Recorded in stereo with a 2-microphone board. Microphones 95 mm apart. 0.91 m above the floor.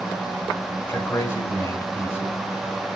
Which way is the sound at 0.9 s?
25° left (ahead or behind).